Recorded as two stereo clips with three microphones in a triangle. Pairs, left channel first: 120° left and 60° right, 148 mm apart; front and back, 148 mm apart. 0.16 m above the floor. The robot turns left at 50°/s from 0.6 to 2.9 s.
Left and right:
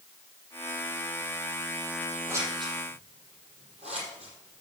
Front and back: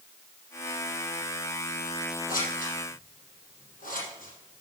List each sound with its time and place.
2.3 s scissors: 15° left, 4.5 m; by 4.6 s 20° right, 4.5 m